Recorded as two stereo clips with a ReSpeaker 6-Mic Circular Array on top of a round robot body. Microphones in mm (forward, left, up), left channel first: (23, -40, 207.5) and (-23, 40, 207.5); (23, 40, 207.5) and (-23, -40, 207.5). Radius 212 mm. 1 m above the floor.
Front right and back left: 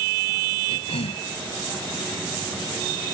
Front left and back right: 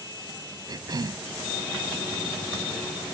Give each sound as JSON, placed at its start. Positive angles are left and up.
{"t": 0.7, "sound": "a cough", "azimuth_deg": -70}